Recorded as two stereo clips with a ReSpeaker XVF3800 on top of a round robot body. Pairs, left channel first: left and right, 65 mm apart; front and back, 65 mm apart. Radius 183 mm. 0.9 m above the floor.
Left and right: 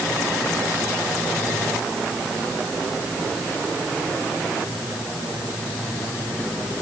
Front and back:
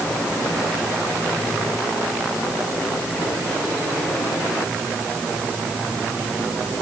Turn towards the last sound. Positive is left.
No sound to turn to.